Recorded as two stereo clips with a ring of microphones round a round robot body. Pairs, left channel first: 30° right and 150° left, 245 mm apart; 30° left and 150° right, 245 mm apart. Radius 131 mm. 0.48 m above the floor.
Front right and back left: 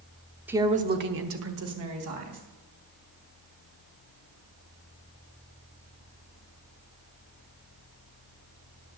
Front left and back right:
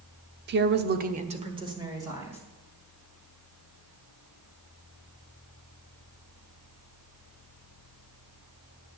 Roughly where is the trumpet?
No trumpet in this recording.